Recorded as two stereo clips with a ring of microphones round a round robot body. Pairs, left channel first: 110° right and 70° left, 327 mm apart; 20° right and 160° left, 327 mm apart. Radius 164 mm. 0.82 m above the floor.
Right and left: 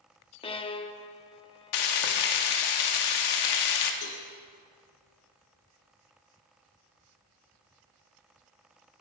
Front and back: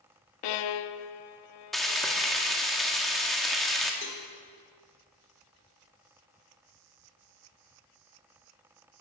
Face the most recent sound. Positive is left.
turn(degrees=-80)